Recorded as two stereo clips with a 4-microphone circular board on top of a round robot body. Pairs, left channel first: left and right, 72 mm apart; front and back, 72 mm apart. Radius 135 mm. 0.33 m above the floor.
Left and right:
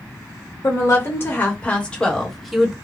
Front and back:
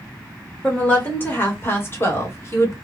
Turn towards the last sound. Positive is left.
turn(degrees=-10)